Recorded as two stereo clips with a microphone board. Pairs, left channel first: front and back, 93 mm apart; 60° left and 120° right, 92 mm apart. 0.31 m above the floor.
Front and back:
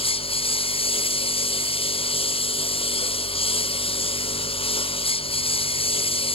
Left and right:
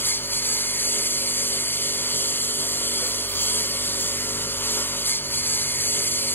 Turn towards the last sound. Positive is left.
turn(degrees=-10)